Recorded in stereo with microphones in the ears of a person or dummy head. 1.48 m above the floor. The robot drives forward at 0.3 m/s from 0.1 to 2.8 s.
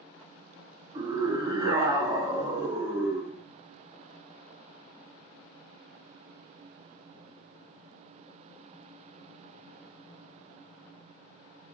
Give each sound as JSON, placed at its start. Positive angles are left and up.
{"t": 0.9, "sound": "a scream", "side_deg": -30, "distance_m": 1.0}